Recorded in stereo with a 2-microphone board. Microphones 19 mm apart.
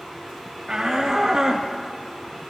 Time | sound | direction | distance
0.7 | a shout | 35° right (ahead or behind) | 2.5 m